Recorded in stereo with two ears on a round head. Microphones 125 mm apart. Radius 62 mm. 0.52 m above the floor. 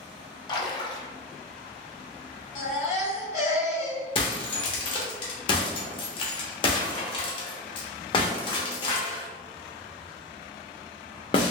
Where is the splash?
30° left (ahead or behind), 0.6 m.